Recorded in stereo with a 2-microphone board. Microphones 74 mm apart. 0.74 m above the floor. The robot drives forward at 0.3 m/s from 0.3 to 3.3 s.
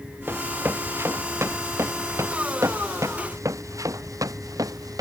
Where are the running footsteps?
30° right (ahead or behind); by 5.0 s 60° right (ahead or behind).